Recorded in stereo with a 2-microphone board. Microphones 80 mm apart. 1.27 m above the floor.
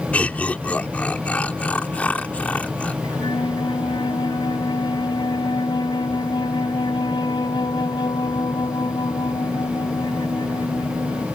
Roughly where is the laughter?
Centre.